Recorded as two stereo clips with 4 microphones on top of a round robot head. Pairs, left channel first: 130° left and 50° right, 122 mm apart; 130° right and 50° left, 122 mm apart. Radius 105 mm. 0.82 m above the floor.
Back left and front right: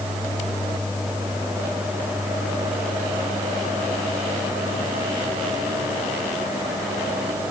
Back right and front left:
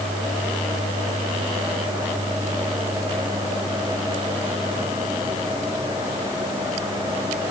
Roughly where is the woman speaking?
I don't hear a woman speaking.